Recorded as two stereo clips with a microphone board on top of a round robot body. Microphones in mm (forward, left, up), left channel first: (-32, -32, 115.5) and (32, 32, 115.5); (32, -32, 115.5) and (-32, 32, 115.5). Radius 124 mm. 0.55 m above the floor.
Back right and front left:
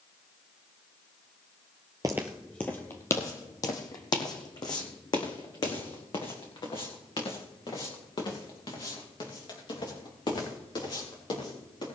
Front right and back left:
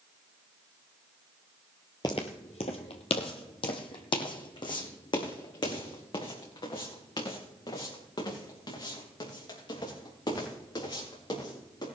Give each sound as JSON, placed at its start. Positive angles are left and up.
{"t": 2.0, "sound": "footsteps", "azimuth_deg": -5, "distance_m": 0.5}